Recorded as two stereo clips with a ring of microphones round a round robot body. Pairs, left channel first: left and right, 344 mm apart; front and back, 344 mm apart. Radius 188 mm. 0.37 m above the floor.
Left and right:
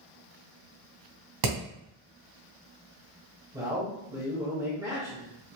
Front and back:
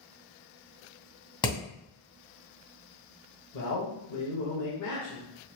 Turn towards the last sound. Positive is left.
turn(degrees=-15)